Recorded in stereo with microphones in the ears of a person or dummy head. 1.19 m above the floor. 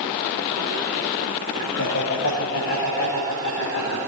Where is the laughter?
70° left (ahead or behind), 5.5 m; by 4.0 s 60° left (ahead or behind), 4.5 m.